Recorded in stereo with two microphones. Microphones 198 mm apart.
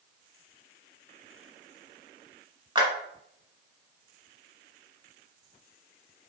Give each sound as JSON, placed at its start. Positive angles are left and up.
{"t": 2.8, "sound": "a clap", "side_deg": -20, "distance_m": 0.9}